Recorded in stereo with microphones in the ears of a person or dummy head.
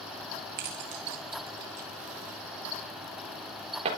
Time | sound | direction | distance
0.6 | keys jangling | 45° right (ahead or behind) | 1.2 m